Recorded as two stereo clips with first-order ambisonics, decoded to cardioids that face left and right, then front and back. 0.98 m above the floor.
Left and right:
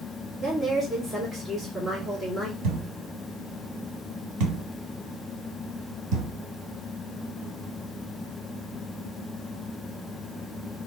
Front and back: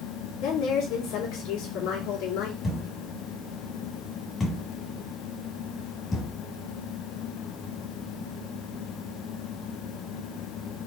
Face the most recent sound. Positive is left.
turn(degrees=-70)